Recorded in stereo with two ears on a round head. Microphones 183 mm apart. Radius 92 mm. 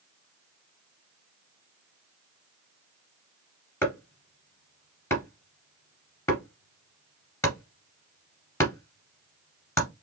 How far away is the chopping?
About 2 m.